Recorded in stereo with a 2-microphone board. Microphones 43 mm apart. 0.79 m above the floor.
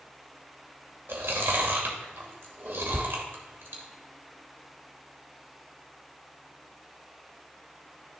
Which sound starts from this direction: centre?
A thud, at 2.9 s.